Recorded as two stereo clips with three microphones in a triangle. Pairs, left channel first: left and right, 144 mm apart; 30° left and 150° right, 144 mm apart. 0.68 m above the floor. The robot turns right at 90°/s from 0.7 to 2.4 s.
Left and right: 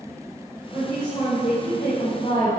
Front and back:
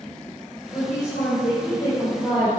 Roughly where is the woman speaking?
Ahead.